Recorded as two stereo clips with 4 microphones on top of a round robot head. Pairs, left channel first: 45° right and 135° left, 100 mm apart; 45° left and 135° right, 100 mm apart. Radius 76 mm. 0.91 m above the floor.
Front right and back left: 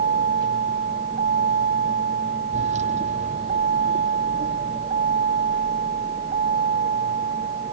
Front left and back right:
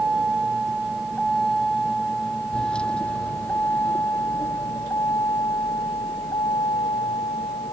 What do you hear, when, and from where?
0.0 s a vehicle: 145° left; by 7.7 s 100° left